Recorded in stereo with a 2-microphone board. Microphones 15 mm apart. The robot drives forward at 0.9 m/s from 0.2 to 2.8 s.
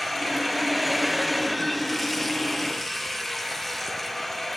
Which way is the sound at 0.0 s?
5° right (ahead or behind).